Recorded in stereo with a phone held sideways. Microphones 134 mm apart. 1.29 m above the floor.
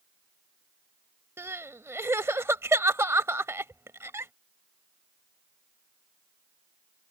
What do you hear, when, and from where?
1.4 s crying: 20° right (ahead or behind)